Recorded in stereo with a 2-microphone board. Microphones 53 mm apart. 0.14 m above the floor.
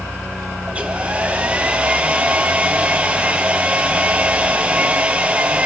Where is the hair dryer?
25° right (ahead or behind), 1.3 m.